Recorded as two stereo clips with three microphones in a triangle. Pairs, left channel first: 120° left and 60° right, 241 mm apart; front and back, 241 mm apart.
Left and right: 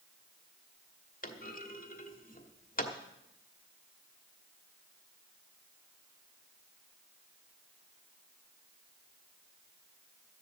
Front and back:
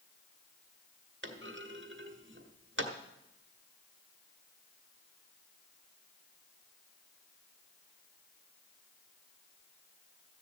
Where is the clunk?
165° left, 1.2 m.